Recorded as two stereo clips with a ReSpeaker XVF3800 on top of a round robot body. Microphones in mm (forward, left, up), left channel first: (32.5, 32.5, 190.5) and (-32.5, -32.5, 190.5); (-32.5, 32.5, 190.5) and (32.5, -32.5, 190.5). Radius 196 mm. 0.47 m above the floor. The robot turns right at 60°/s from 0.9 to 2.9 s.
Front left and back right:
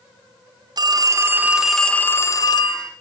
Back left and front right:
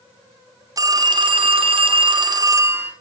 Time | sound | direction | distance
0.8 | a phone ringing | 95° right | 0.7 m